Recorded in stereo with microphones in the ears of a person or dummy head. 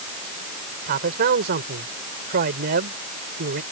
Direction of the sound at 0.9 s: 50° right (ahead or behind).